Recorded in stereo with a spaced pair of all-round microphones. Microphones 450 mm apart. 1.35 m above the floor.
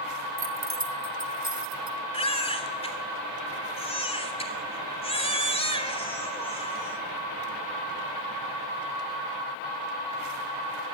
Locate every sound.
0.4 s keys jangling: 35° right (ahead or behind), 1.5 m; by 2.0 s 70° right (ahead or behind), 3 m
2.1 s a baby crying: 15° left (ahead or behind), 3 m